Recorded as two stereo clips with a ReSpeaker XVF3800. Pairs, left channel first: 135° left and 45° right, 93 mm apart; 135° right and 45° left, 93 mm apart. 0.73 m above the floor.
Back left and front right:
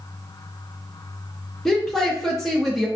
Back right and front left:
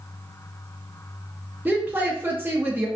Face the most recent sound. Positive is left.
turn(degrees=55)